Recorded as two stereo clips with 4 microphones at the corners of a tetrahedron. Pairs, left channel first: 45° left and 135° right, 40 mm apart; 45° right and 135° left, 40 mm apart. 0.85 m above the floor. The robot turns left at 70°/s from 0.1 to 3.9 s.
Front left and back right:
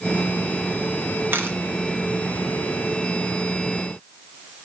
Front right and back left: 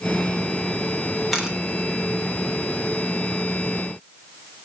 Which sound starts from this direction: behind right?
A camera shutter, at 1.3 s.